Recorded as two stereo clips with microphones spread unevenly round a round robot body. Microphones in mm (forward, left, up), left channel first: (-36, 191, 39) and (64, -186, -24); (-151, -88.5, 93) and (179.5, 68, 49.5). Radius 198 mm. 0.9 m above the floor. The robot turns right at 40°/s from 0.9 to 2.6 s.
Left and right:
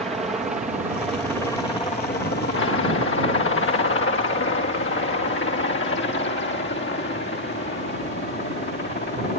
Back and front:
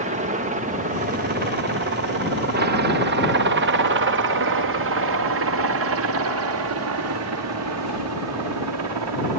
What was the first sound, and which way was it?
A helicopter, straight ahead.